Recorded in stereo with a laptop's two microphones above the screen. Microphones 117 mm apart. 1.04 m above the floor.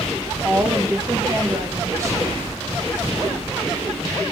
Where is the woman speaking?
25° right (ahead or behind), 1.2 m.